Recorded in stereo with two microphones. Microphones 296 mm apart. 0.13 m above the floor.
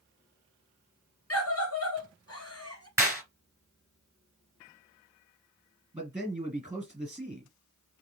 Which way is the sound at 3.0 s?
10° right (ahead or behind).